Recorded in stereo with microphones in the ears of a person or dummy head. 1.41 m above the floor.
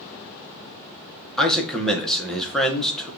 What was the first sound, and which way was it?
A man speaking, centre (ahead or behind).